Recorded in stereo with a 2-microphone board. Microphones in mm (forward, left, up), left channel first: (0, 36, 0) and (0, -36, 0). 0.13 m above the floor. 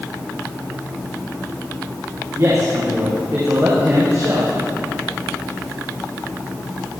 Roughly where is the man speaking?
Right.